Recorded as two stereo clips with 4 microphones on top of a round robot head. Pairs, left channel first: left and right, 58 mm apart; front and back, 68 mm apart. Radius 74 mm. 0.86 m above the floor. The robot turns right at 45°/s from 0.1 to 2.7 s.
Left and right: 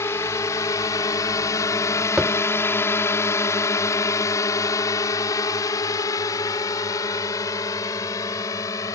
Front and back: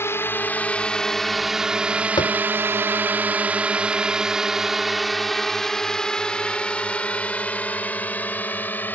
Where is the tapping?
10° right; by 2.4 s straight ahead.